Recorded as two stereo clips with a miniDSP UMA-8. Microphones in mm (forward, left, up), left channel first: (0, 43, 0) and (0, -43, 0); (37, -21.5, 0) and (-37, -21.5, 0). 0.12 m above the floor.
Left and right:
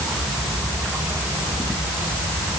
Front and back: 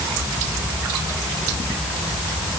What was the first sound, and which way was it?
Only background noise.